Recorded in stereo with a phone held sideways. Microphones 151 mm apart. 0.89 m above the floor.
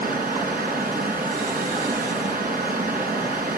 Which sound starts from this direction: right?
Running water, at 0.0 s.